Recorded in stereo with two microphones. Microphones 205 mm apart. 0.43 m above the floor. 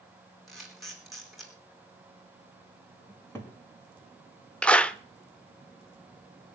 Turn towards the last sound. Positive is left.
turn(degrees=5)  # may be behind; listen again after turning